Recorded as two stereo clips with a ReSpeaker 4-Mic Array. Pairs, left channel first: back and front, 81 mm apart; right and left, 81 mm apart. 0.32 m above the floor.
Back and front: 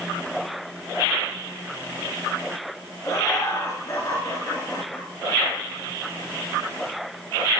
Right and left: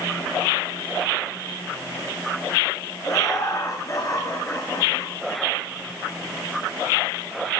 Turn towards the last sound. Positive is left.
turn(degrees=-140)